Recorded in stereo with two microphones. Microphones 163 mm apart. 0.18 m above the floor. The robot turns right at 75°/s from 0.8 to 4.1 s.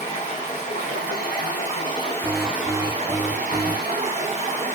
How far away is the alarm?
About 0.7 m.